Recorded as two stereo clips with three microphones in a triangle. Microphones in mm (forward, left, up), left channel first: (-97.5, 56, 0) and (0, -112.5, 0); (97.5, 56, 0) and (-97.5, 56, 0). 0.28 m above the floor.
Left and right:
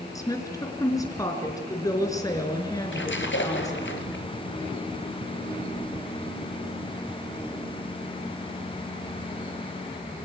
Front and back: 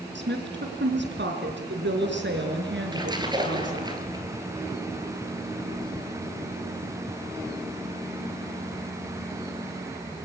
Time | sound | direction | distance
0.1 | a woman speaking | 170° right | 4 m
2.9 | a splash | 110° left | 2.5 m
5.7 | a whoosh | 50° right | 9.5 m